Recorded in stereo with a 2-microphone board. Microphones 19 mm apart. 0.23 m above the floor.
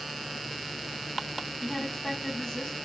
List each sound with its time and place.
1.6 s a woman speaking: 30° left (ahead or behind), 1.5 m